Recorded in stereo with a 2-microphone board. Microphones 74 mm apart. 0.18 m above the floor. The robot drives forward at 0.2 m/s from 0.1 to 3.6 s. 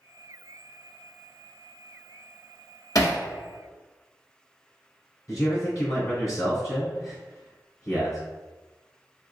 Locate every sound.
3.0 s hammering: 55° left (ahead or behind), 0.9 m
5.3 s a man speaking: 45° left (ahead or behind), 1.6 m